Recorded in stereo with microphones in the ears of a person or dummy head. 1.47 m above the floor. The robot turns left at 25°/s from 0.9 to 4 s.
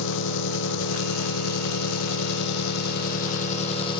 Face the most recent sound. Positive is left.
turn(degrees=30)